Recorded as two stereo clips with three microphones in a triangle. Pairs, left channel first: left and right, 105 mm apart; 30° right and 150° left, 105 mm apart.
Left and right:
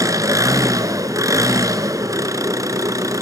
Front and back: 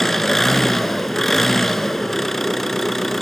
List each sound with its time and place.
0.0 s an engine running: 115° right, 0.9 m